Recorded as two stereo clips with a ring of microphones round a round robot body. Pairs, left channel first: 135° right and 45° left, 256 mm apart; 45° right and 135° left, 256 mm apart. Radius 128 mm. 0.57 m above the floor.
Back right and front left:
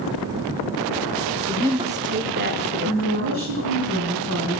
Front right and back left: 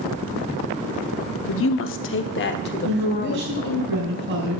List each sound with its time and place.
1.5 s a woman speaking: 30° right, 0.9 m; by 3.8 s 10° left, 2.0 m
2.8 s a woman speaking: 90° left, 3.5 m